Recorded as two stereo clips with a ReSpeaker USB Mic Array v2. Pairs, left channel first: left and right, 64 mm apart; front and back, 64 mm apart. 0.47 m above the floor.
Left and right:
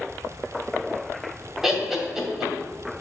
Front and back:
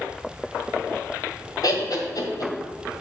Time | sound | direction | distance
1.6 | laughter | 5° right | 2.0 m